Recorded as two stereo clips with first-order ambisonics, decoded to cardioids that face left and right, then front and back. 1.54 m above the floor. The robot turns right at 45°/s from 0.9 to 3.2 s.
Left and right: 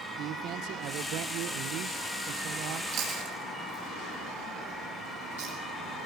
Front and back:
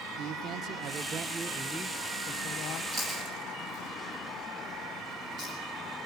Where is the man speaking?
130° right, 1.0 m; by 2.8 s 45° right, 1.0 m.